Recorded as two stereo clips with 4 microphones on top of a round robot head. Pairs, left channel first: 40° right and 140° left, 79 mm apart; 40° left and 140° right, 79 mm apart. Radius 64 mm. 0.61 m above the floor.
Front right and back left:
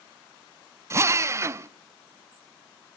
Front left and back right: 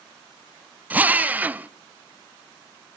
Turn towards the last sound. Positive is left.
turn(degrees=160)